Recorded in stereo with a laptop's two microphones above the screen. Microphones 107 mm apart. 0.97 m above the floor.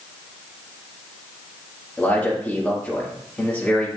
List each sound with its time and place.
2.0 s a man speaking: 15° left (ahead or behind), 1.8 m